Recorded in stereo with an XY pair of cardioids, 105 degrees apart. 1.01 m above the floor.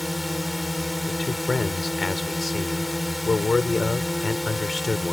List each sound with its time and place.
0.0 s a drone: 15° left
1.1 s a man speaking: 30° left